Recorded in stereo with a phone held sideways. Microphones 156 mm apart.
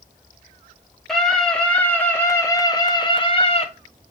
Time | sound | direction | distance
1.1 | a scream | centre (ahead or behind) | 2 m